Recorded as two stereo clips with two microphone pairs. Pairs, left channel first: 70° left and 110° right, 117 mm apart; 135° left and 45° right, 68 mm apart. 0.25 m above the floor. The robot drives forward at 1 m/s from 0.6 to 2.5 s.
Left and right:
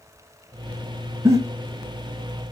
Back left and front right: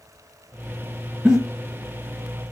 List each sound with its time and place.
1.2 s a giggle: 105° right, 0.8 m; by 1.4 s 120° right, 0.9 m